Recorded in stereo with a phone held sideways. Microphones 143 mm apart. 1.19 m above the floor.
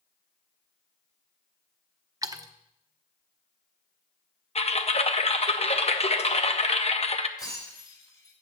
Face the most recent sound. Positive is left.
turn(degrees=30)  # may be behind; listen again after turning